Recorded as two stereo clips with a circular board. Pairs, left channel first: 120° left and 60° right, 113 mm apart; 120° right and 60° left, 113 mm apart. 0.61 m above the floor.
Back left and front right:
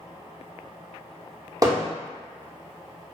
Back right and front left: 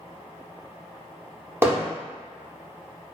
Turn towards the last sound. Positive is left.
turn(degrees=-10)